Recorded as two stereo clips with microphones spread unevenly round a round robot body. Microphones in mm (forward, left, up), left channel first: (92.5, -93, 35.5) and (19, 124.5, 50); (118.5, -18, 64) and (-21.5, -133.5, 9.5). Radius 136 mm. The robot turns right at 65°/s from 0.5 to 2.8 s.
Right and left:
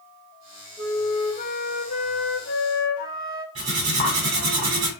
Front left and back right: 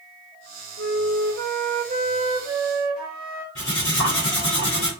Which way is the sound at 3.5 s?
85° left.